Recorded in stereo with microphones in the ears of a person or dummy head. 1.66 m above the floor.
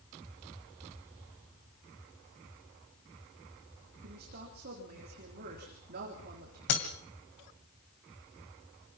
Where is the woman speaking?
50° right (ahead or behind), 3.5 m.